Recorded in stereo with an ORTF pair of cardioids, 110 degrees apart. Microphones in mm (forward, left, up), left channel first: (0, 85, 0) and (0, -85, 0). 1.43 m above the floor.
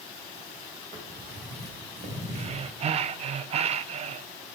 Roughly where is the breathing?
Ahead right.